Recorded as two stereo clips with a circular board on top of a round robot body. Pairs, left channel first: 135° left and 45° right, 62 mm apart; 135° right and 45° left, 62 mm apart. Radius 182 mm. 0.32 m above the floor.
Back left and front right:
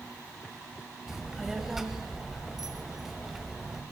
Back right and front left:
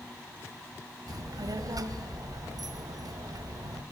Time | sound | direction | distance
1.1 | a child speaking | 40° left | 1.5 m